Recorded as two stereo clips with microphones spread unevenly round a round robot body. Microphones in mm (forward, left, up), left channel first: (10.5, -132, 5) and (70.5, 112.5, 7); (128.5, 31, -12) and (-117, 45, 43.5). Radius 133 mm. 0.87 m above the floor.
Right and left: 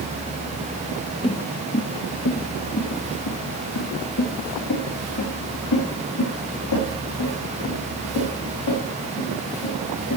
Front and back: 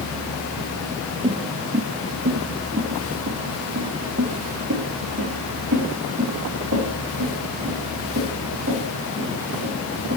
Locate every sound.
1.2 s footsteps: 160° right, 1.0 m; by 10.2 s 125° right, 9 m